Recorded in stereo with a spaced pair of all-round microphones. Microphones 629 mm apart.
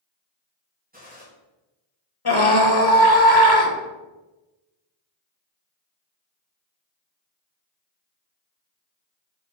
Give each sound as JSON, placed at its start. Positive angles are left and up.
{"t": 0.9, "sound": "a gunshot", "side_deg": -15, "distance_m": 2.5}
{"t": 2.2, "sound": "a scream", "side_deg": 35, "distance_m": 1.4}